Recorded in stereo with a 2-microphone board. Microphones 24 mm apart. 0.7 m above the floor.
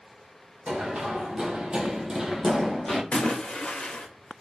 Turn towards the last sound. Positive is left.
turn(degrees=60)  # may be behind; listen again after turning